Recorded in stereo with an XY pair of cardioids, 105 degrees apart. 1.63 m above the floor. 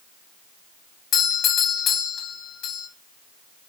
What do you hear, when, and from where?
1.1 s a doorbell: 65° left, 2.5 m